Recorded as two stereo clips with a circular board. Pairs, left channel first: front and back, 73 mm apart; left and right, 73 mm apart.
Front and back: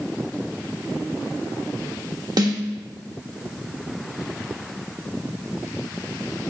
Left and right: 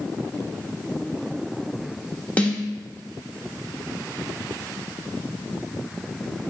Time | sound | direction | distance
2.4 | a snare drum | 160° left | 1.2 m